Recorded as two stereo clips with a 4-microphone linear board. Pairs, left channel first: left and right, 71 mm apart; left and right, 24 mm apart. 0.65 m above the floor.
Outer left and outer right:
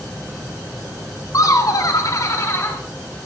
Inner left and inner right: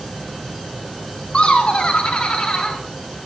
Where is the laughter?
50° left (ahead or behind), 1.9 m; by 2.8 s 35° left (ahead or behind), 1.7 m.